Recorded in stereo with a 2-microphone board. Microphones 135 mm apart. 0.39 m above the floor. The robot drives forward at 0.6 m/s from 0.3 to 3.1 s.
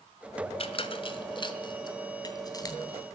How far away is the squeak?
About 1.8 m.